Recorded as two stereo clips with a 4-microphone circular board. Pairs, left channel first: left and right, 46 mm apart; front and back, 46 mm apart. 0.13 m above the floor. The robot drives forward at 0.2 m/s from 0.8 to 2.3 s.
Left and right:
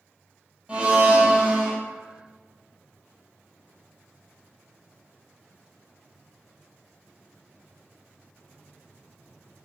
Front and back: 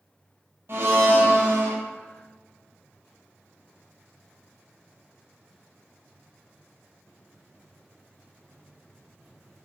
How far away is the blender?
About 0.5 m.